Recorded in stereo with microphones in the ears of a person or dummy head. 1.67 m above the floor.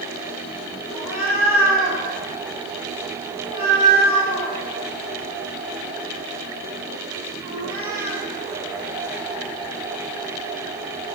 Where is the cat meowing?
Centre (ahead or behind), 3 m; by 8.2 s 40° right (ahead or behind), 6 m.